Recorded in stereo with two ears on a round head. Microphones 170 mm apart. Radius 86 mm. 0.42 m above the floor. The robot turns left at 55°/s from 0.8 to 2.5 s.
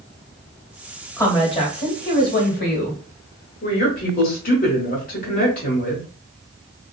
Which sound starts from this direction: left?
A woman speaking, at 3.6 s.